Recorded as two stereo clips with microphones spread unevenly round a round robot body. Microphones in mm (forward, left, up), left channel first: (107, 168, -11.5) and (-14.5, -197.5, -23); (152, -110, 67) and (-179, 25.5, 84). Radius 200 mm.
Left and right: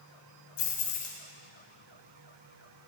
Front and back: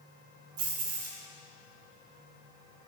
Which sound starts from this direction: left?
Keys jangling, at 0.6 s.